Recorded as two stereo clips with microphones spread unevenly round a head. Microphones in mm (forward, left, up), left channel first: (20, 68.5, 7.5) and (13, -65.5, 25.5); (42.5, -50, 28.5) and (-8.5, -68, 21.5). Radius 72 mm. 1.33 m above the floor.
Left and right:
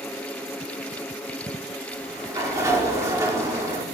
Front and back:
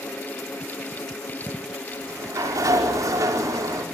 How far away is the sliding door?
About 4.5 m.